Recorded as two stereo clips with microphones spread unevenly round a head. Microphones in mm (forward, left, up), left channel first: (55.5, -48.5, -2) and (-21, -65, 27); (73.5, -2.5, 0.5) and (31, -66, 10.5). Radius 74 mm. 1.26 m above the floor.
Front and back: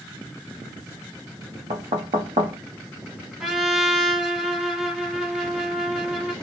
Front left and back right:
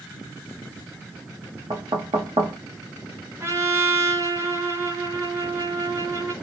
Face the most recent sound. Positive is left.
turn(degrees=-115)